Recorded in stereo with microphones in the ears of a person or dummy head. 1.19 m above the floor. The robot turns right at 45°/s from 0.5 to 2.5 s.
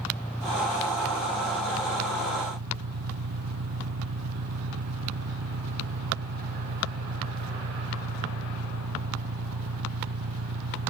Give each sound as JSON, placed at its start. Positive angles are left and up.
{"t": 0.0, "sound": "an engine running", "azimuth_deg": 180}